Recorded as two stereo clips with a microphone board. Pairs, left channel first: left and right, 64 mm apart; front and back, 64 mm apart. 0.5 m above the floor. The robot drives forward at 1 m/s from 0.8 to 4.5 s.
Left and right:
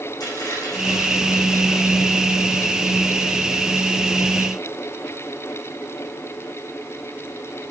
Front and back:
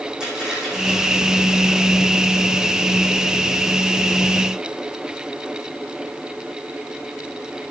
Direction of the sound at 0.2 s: 100° left.